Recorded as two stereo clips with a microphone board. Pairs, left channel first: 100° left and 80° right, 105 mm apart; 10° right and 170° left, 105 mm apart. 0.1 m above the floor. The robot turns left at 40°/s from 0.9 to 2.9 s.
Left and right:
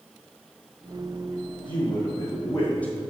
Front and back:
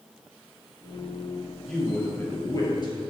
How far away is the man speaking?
About 2.5 m.